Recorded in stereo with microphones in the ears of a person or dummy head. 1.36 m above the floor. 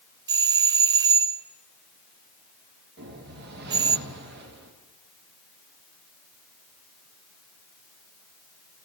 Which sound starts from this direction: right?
A whoosh, at 3.0 s.